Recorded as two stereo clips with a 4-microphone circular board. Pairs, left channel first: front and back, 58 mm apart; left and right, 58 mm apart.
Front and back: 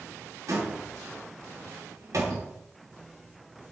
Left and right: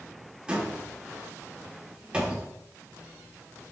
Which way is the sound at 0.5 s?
165° right.